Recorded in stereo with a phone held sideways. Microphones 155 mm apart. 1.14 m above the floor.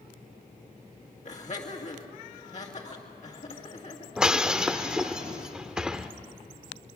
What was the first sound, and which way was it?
Laughter, 50° left (ahead or behind).